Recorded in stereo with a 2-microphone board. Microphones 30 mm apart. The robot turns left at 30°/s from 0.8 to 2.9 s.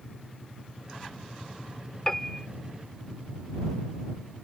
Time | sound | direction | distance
2.1 | a piano | 20° left (ahead or behind) | ?